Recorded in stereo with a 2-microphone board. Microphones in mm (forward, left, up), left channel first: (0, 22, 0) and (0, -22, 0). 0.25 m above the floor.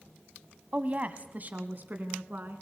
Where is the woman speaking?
35° right (ahead or behind), 1.4 m; by 2.6 s 45° right (ahead or behind), 2.5 m.